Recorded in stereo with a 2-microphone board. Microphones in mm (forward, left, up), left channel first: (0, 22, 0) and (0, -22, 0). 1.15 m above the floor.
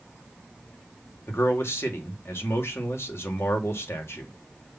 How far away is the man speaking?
About 2 m.